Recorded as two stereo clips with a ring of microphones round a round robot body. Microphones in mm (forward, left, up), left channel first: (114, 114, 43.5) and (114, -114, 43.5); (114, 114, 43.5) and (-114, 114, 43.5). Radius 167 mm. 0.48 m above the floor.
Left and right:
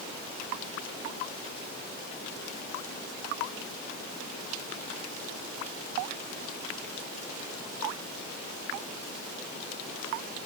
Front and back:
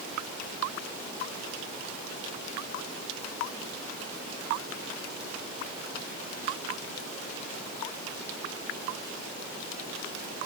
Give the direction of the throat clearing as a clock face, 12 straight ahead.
I don't hear throat clearing.